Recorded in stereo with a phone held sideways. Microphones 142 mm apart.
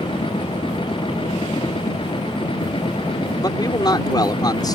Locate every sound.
0.0 s a machine running: 35° left (ahead or behind)
3.4 s a man speaking: 30° left (ahead or behind)